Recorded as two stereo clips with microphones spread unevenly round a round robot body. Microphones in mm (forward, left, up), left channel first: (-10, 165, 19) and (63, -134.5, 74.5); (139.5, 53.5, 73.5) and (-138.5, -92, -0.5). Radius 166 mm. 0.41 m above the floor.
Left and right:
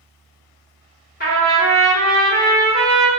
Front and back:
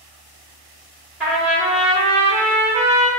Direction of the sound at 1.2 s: 140° left.